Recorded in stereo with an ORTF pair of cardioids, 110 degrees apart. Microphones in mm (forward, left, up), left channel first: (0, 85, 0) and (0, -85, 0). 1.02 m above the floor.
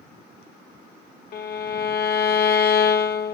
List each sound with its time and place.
1.3 s a violin: 65° left, 0.6 m